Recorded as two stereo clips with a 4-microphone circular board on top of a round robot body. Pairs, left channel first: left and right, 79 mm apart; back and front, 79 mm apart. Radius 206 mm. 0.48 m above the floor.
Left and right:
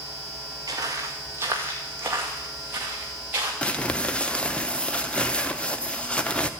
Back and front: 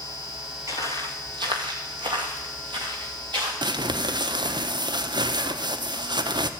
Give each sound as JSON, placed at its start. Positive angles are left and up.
{"t": 0.7, "sound": "footsteps", "azimuth_deg": -55, "distance_m": 0.5}
{"t": 3.6, "sound": "crumpling", "azimuth_deg": 15, "distance_m": 1.1}